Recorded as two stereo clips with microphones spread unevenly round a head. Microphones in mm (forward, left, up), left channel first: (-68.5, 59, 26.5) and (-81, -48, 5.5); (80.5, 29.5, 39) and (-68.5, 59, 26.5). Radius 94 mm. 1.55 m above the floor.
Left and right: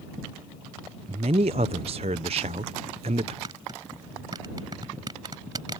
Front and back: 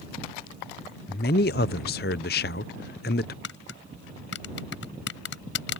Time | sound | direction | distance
1.1 | a man speaking | 45° right | ?
3.4 | tapping | 25° right | ?